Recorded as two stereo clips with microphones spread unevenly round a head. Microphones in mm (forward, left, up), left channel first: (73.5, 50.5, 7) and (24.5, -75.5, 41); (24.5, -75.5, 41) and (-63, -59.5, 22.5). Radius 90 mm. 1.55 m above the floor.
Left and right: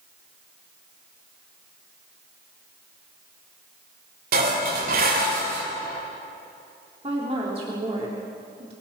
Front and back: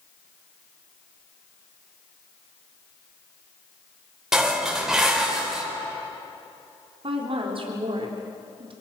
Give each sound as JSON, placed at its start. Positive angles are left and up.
{"t": 4.3, "sound": "dishes clattering", "azimuth_deg": -105, "distance_m": 4.5}
{"t": 7.0, "sound": "a woman speaking", "azimuth_deg": -170, "distance_m": 4.0}